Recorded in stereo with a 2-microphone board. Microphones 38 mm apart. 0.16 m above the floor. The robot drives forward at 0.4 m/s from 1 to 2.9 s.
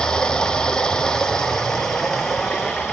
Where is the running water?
20° left (ahead or behind), 0.9 m; by 2.9 s 10° left (ahead or behind), 1.6 m.